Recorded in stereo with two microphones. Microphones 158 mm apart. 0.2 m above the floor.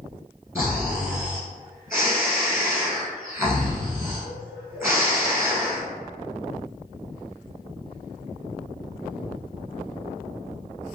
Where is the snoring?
15° right (ahead or behind), 1.3 m.